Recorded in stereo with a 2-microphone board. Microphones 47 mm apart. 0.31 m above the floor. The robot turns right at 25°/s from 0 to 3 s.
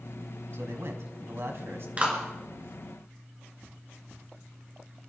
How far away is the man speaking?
About 2.5 m.